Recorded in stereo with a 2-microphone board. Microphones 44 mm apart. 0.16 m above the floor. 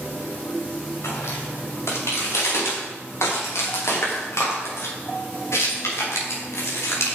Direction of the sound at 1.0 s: 80° left.